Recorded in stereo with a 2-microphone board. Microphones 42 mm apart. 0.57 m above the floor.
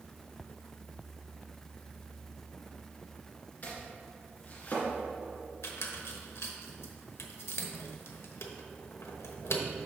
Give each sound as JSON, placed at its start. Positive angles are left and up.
{"t": 3.6, "sound": "chopping", "side_deg": 40, "distance_m": 2.0}
{"t": 5.6, "sound": "a squeak", "side_deg": 85, "distance_m": 0.9}